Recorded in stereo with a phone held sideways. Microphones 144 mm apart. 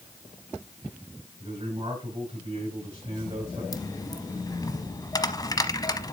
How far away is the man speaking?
About 5.5 m.